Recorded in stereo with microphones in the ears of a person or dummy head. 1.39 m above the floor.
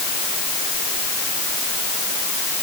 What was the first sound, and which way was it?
Only background noise.